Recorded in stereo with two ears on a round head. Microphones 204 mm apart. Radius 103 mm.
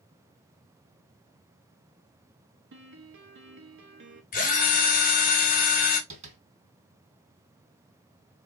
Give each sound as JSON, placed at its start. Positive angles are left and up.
{"t": 2.7, "sound": "a piano", "side_deg": -55, "distance_m": 1.0}
{"t": 4.3, "sound": "a drill", "side_deg": 40, "distance_m": 1.9}
{"t": 6.1, "sound": "tapping", "side_deg": -35, "distance_m": 2.5}